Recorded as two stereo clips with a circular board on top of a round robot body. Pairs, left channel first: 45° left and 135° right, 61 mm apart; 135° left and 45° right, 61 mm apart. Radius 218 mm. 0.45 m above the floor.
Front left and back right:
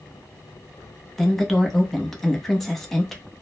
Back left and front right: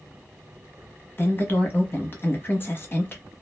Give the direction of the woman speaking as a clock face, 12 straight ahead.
8 o'clock.